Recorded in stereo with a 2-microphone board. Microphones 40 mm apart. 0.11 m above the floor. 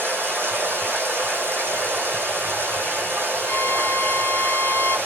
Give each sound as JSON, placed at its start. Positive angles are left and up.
{"t": 0.0, "sound": "running water", "side_deg": -65, "distance_m": 1.8}
{"t": 3.5, "sound": "a violin", "side_deg": 25, "distance_m": 1.5}